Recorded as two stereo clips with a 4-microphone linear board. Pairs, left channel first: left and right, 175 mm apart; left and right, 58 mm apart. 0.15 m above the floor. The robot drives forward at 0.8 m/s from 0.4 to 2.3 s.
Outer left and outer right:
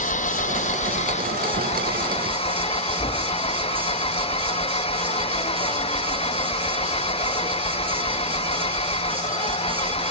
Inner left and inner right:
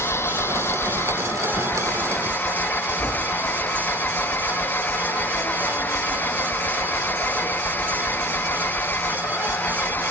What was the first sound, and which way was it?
An engine running, 45° left (ahead or behind).